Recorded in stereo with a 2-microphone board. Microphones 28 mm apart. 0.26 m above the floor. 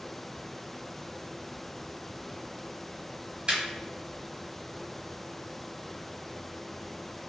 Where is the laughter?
40° right (ahead or behind), 1.4 m.